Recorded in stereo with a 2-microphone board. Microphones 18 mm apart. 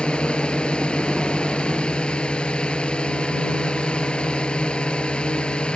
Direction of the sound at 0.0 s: 75° left (ahead or behind).